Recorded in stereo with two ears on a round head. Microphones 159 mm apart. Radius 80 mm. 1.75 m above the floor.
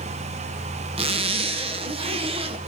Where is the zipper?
35° right (ahead or behind), 0.7 m.